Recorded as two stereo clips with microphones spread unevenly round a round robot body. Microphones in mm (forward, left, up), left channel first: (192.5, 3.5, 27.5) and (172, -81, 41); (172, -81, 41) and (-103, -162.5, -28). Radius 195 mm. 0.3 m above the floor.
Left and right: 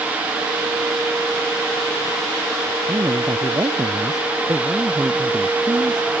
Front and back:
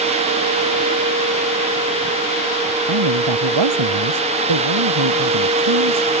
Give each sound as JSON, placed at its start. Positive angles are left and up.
{"t": 2.9, "sound": "a man speaking", "azimuth_deg": 180}